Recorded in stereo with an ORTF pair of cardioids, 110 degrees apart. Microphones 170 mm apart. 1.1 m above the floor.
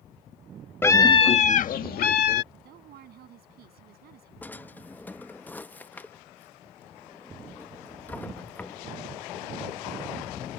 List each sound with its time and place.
0.8 s a scream: 15° left; by 2.4 s 75° left
2.5 s a woman speaking: 70° right
4.4 s a drawer: 10° left